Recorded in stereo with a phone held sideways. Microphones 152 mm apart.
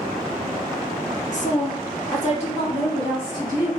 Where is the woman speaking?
50° left (ahead or behind), 0.9 m; by 3.7 s 30° left (ahead or behind), 2.5 m.